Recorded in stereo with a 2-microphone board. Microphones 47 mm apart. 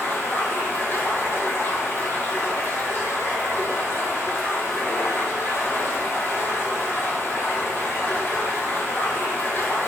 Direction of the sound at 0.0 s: 45° left (ahead or behind).